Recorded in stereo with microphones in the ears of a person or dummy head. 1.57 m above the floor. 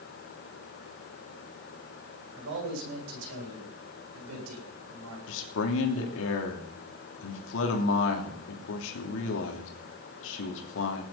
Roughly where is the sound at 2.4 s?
Right.